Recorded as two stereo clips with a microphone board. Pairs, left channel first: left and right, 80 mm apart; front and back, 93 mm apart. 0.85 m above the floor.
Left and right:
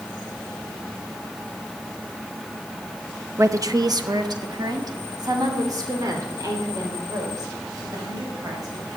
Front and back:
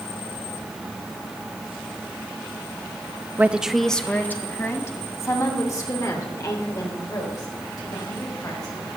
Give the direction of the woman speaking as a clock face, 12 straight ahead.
4 o'clock.